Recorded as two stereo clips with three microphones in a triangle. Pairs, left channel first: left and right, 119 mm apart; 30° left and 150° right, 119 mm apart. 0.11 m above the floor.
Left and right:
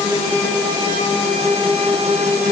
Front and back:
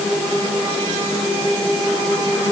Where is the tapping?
I don't hear tapping.